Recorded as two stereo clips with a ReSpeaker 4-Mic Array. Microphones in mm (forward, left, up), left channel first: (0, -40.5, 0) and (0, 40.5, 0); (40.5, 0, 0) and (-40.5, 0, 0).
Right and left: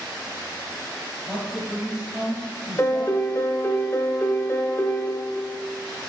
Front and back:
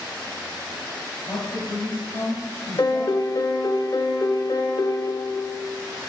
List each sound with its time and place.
1.3 s a man speaking: 10° left, 2.5 m
2.8 s a piano: 35° right, 0.8 m